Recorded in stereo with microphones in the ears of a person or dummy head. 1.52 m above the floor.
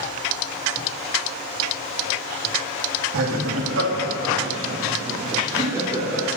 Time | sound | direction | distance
3.1 | laughter | 80° right | 2 m